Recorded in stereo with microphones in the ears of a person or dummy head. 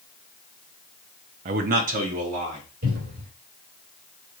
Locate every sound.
1.4 s a man speaking: 35° right (ahead or behind), 0.6 m; by 2.6 s 40° right (ahead or behind), 1.8 m
2.8 s a cupboard door: 60° right (ahead or behind), 3.5 m